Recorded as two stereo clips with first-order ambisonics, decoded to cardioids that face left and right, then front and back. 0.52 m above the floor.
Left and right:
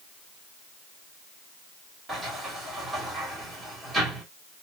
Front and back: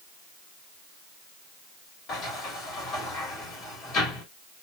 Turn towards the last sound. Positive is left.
turn(degrees=-30)